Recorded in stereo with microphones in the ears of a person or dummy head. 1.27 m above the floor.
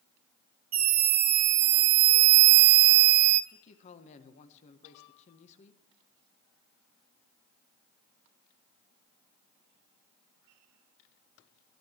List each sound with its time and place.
0.7 s a scream: 40° right (ahead or behind), 1.2 m; by 3.4 s 35° right (ahead or behind), 0.6 m
3.5 s a man speaking: 40° left (ahead or behind), 1.2 m